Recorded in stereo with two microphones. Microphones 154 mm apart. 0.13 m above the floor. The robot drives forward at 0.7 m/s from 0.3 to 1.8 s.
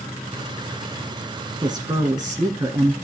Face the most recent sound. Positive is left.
turn(degrees=-25)  # may be behind; listen again after turning